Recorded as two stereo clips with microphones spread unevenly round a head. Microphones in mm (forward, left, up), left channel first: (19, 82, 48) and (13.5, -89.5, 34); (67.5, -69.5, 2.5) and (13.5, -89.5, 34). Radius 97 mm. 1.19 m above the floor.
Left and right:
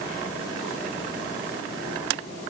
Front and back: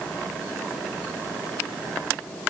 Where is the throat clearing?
No throat clearing in this recording.